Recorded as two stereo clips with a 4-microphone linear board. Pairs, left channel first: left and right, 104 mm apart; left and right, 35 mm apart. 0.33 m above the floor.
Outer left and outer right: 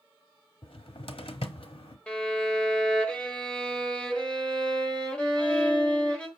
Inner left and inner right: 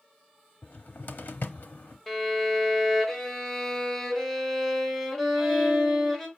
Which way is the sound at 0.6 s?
65° left (ahead or behind).